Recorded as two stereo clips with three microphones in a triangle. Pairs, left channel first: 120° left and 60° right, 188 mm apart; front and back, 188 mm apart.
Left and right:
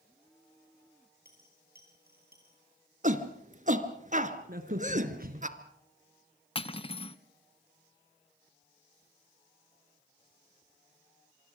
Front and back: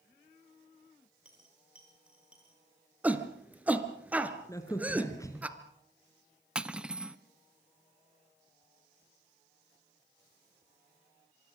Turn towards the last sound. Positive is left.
turn(degrees=100)